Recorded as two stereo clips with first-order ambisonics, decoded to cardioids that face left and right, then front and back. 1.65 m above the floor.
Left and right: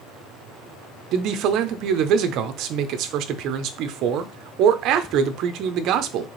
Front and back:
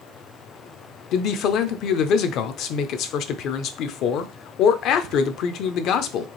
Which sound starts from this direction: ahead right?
A man speaking, at 1.1 s.